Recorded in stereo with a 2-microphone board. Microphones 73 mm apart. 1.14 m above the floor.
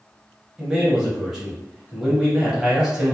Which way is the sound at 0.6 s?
5° right (ahead or behind).